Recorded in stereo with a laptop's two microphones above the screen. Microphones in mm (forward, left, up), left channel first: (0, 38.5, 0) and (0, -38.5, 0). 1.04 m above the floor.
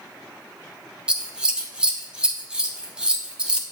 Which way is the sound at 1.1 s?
10° right (ahead or behind).